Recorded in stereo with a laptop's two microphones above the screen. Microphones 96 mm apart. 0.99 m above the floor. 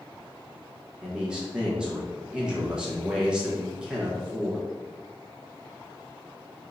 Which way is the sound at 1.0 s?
10° right (ahead or behind).